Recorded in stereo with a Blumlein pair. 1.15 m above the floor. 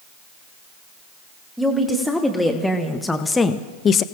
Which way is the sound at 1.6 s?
Straight ahead.